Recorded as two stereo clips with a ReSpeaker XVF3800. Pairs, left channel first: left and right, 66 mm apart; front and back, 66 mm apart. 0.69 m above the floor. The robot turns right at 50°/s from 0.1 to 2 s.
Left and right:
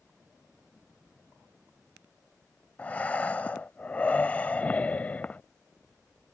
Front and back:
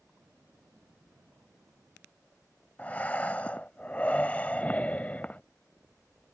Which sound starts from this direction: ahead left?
Breathing, at 2.8 s.